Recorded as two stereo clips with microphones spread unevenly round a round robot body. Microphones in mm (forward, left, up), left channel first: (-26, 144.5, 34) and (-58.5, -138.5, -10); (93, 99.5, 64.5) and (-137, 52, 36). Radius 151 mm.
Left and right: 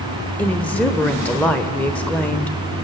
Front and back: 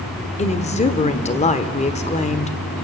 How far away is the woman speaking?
About 1.2 m.